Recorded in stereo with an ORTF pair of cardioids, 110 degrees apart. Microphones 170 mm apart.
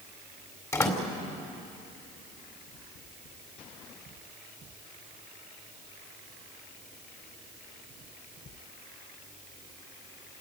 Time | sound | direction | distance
0.7 | a door slam | 20° left | 4 m